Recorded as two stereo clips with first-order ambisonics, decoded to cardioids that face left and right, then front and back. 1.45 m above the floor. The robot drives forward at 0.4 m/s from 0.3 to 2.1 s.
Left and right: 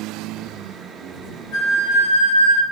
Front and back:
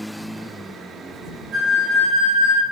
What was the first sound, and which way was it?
A flute, 125° left.